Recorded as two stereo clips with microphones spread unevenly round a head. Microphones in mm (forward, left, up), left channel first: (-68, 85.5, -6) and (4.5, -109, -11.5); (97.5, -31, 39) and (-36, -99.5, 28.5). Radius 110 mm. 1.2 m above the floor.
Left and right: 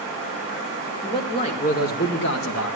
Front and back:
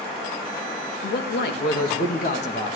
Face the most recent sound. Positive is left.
turn(degrees=90)